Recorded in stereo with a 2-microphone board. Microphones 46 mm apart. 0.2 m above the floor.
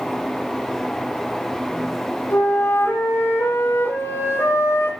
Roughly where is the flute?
Left.